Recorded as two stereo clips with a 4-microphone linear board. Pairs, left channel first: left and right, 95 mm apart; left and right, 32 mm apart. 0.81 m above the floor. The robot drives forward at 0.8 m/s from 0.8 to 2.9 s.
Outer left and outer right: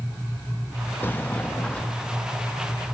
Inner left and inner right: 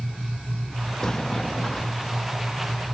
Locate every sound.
1.0 s a sliding door: 20° left (ahead or behind), 0.8 m; by 2.2 s 10° left (ahead or behind), 1.6 m